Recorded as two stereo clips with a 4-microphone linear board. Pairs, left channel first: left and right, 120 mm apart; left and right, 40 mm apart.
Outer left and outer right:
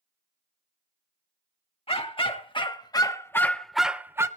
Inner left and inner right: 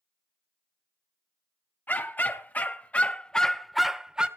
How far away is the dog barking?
About 1.5 m.